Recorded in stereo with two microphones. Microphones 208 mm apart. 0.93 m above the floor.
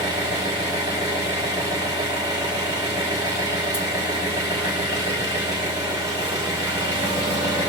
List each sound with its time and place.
0.0 s an engine running: 20° right (ahead or behind), 1.5 m